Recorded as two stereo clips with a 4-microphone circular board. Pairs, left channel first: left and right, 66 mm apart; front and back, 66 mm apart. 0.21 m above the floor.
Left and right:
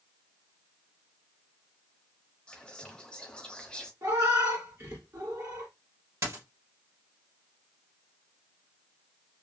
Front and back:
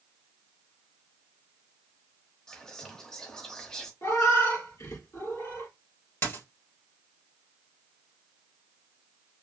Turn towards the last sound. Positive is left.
turn(degrees=-50)